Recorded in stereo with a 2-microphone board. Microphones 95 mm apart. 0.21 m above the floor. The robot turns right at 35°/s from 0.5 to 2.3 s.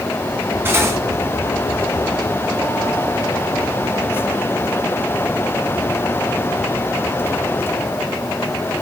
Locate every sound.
0.7 s cutlery clinking: 25° right (ahead or behind), 1.1 m; by 1.0 s 35° right (ahead or behind), 1.1 m